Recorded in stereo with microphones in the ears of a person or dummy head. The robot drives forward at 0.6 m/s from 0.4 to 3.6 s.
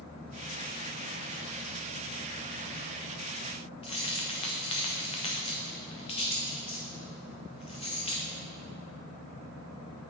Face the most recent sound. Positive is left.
turn(degrees=20)  # may be behind; listen again after turning